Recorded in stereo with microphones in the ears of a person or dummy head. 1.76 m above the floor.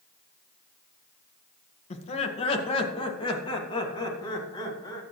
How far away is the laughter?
About 1.9 m.